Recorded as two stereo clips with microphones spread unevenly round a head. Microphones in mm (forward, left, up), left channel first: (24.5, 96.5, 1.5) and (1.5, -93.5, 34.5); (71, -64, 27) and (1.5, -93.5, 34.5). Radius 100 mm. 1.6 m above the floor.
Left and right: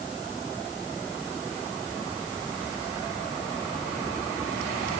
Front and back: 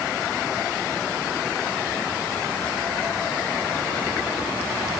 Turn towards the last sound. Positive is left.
No sound to turn to.